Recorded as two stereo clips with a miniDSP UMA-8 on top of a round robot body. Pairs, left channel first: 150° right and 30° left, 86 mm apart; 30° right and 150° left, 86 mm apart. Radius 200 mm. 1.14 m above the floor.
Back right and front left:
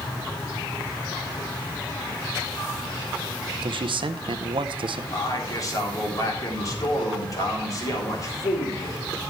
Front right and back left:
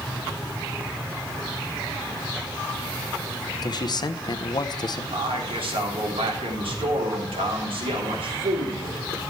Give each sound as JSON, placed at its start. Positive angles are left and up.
{"t": 3.6, "sound": "a man speaking", "azimuth_deg": 10, "distance_m": 0.7}
{"t": 5.1, "sound": "a man speaking", "azimuth_deg": 160, "distance_m": 3.0}